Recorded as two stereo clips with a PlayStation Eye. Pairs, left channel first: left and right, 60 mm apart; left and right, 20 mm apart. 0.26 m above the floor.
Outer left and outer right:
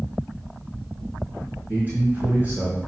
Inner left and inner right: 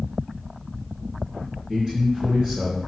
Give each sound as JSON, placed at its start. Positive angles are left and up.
{"t": 1.7, "sound": "a man speaking", "side_deg": -30, "distance_m": 4.0}